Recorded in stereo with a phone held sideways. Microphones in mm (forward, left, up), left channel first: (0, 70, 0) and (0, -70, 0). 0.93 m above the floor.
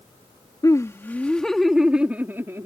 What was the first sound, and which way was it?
Laughter, 25° left (ahead or behind).